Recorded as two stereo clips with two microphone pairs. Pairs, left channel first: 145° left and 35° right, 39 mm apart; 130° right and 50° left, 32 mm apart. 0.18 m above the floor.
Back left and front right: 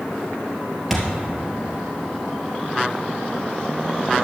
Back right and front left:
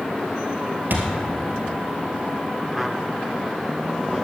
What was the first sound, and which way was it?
A thud, 55° left.